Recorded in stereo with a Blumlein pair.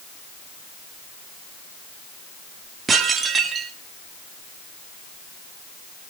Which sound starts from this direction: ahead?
Dishes clattering, at 2.9 s.